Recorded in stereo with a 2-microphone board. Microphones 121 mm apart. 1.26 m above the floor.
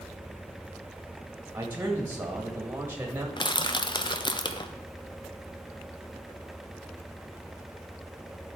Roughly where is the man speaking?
Centre.